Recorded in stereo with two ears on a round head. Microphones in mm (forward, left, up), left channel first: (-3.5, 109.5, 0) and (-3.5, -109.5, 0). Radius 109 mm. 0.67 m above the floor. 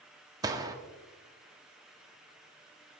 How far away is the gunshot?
About 0.7 m.